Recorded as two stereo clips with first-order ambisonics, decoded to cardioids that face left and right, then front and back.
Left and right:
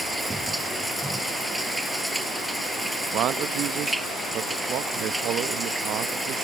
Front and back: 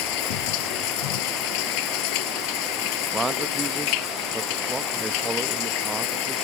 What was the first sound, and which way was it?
Running water, 5° right.